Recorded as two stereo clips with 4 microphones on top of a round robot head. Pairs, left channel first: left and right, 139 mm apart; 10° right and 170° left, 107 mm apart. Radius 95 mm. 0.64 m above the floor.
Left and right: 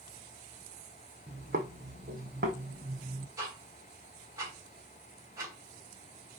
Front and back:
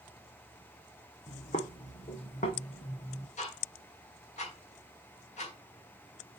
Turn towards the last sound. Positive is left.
turn(degrees=-20)